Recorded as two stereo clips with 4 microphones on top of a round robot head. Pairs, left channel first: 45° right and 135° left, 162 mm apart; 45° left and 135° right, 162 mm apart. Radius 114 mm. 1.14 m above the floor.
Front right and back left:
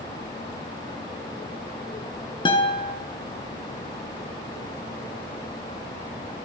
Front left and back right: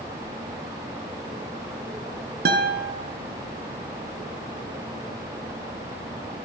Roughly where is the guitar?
Right.